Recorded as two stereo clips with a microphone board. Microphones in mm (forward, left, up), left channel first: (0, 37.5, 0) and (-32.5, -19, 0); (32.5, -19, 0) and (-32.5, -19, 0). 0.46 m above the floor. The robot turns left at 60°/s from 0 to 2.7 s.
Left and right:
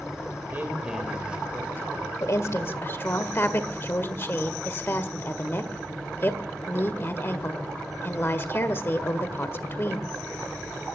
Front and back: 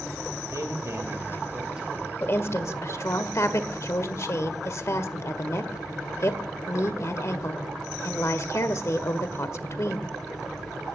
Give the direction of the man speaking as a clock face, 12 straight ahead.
6 o'clock.